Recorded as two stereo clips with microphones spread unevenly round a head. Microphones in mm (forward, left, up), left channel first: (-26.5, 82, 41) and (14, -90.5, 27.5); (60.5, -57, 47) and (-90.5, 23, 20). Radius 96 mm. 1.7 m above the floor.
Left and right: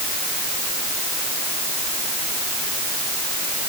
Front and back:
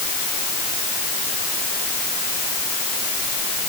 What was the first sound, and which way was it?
Only background noise.